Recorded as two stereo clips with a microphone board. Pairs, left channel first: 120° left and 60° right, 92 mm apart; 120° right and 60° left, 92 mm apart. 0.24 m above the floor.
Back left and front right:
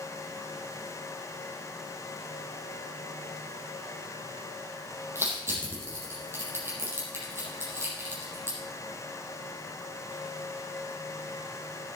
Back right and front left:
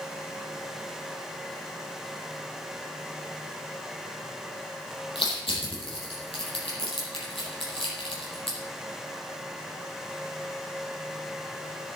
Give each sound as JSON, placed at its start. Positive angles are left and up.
{"t": 5.2, "sound": "crushing", "azimuth_deg": -120, "distance_m": 6.0}